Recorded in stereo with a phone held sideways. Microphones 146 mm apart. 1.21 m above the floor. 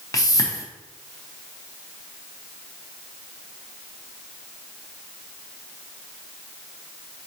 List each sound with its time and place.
0.1 s a whoosh: 25° left (ahead or behind), 0.7 m